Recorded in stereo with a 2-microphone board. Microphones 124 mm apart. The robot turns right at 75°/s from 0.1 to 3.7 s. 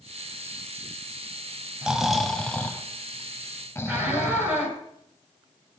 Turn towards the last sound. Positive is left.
turn(degrees=-15)  # may be behind; listen again after turning